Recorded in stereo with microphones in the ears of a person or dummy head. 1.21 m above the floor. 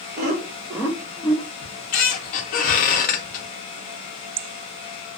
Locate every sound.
0.2 s laughter: 45° right (ahead or behind), 0.9 m; by 1.4 s 35° left (ahead or behind), 0.8 m
1.6 s a squeak: 45° left (ahead or behind), 0.6 m